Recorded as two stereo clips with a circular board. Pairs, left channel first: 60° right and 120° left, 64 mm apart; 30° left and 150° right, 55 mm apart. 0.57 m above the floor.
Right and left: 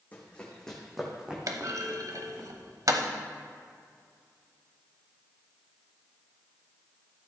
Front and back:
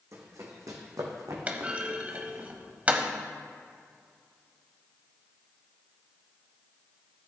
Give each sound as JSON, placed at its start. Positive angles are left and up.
{"t": 0.1, "sound": "running footsteps", "azimuth_deg": -125, "distance_m": 2.0}
{"t": 1.5, "sound": "a clunk", "azimuth_deg": 145, "distance_m": 0.8}